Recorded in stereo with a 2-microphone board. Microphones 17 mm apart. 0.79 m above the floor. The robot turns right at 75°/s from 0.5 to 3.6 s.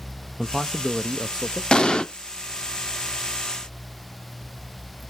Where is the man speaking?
105° right, 0.7 m; by 1.6 s 20° right, 0.7 m.